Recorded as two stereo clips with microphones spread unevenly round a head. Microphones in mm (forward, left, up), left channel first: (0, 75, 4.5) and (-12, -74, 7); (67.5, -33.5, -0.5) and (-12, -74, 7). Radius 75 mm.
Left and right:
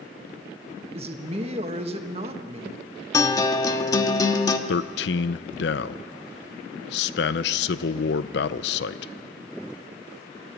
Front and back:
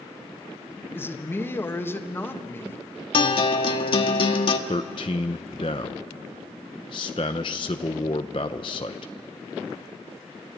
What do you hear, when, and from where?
0.9 s a man speaking: 40° right, 1.9 m
3.1 s a guitar: 20° left, 1.3 m
4.7 s a man speaking: 80° left, 0.7 m